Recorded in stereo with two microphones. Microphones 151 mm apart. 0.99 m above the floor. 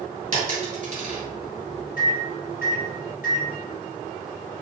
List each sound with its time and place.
0.3 s a dropped coin: 55° right (ahead or behind), 1.8 m
2.0 s a microwave: 65° left (ahead or behind), 1.2 m